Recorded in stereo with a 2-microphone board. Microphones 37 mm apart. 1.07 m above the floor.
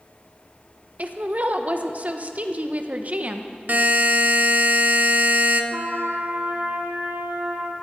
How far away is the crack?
I don't hear a crack.